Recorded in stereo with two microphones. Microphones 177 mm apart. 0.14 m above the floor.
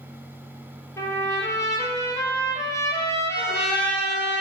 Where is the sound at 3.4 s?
75° left (ahead or behind), 5 m.